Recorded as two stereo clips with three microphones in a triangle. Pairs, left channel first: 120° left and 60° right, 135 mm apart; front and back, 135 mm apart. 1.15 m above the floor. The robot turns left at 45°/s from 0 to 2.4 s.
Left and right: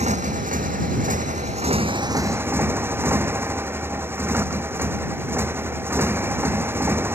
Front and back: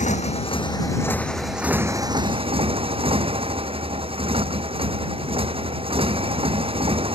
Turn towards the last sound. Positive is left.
turn(degrees=-135)